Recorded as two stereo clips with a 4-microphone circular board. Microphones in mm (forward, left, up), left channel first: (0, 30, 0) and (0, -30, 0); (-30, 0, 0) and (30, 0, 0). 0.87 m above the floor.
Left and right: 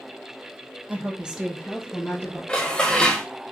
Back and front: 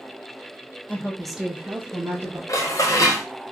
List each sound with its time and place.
0.9 s a woman speaking: 135° right, 0.7 m; by 2.4 s 30° left, 1.1 m
2.5 s dishes clattering: 165° left, 0.7 m